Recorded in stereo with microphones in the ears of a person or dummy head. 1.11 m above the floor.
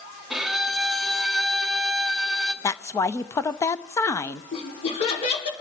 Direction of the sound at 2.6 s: 15° left (ahead or behind).